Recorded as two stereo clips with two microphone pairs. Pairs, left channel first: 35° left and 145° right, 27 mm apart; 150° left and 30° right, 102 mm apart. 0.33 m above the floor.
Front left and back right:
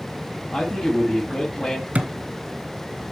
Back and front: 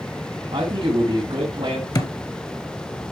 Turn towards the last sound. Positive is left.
turn(degrees=-160)